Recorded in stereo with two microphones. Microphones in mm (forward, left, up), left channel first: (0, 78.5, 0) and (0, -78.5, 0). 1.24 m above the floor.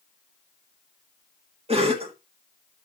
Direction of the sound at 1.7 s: 40° right (ahead or behind).